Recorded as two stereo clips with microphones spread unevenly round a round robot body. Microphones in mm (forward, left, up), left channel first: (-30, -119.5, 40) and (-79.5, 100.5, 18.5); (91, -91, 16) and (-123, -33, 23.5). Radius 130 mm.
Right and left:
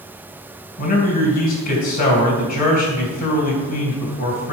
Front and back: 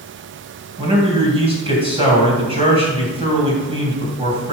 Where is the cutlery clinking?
I don't hear cutlery clinking.